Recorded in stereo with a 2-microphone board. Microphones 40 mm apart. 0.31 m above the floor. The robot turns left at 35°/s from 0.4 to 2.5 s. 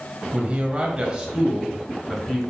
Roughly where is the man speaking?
Behind right.